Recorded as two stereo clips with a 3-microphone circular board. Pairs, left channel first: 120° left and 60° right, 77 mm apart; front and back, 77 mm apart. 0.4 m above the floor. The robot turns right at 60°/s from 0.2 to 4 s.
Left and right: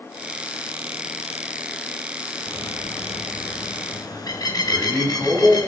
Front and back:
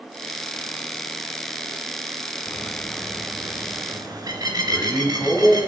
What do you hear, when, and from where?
2.5 s a bird: 55° left, 1.0 m; by 5.7 s 150° left, 1.0 m
4.7 s a man speaking: 5° left, 2 m